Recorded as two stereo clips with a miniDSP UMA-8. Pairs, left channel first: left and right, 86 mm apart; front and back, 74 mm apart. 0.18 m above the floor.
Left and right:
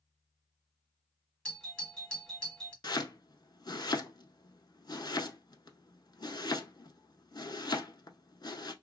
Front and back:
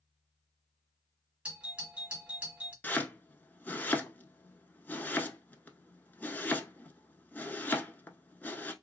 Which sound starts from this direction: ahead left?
Chopping, at 2.8 s.